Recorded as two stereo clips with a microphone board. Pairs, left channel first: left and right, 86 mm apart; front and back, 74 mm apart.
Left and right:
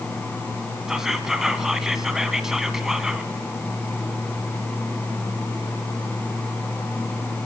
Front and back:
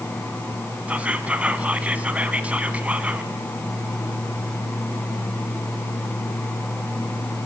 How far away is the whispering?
About 1.3 m.